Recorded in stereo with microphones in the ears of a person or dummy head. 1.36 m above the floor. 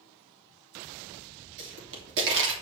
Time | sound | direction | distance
1.6 | a pop | 70° right (ahead or behind) | 3 m